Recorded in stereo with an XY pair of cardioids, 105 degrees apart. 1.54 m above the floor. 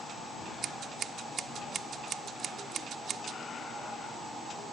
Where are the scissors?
60° right.